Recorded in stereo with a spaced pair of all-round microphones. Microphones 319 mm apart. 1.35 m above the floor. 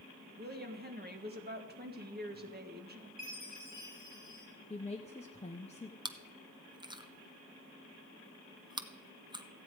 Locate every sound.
0.4 s a woman speaking: 30° right (ahead or behind), 1.5 m
3.2 s a chime: 60° right (ahead or behind), 3 m
4.7 s a woman speaking: 20° left (ahead or behind), 0.8 m
6.0 s chewing: 15° right (ahead or behind), 0.7 m